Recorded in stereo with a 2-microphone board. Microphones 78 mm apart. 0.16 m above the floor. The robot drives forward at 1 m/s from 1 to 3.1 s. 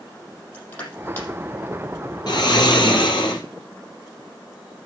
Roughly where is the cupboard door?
No cupboard door in this recording.